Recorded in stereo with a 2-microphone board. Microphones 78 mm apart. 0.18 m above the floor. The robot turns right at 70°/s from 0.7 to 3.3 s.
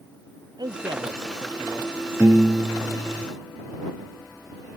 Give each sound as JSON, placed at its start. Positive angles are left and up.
{"t": 0.6, "sound": "a man speaking", "azimuth_deg": -110}
{"t": 2.2, "sound": "a piano", "azimuth_deg": -40}